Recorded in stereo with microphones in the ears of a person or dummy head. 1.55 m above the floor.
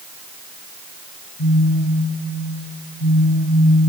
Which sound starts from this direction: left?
A phone buzzing, at 1.4 s.